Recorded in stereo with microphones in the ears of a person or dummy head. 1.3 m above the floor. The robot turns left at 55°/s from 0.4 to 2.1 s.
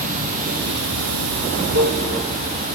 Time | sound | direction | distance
0.0 | running water | 45° right | 1.0 m